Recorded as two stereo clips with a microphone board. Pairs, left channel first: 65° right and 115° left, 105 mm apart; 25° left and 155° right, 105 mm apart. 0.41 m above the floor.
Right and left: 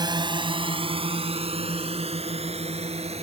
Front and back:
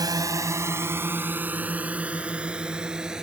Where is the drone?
155° left; by 3.2 s 120° left.